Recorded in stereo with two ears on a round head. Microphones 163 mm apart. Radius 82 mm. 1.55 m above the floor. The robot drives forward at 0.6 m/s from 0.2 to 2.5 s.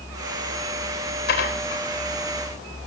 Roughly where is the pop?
I don't hear a pop.